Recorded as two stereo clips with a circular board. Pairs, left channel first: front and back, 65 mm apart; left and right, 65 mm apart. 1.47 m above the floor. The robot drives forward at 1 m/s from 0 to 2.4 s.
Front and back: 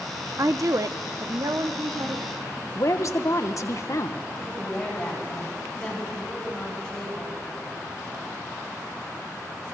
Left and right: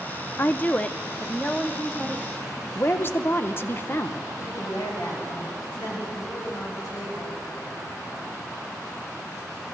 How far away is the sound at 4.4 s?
About 9 m.